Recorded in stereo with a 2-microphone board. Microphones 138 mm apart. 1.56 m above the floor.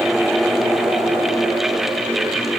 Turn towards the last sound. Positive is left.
No sound to turn to.